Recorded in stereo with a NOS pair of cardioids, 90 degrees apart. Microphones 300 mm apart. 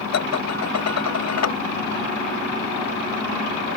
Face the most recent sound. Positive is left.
turn(degrees=55)